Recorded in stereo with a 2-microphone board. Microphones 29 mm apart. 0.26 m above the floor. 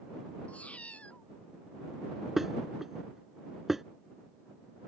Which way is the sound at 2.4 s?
15° right (ahead or behind).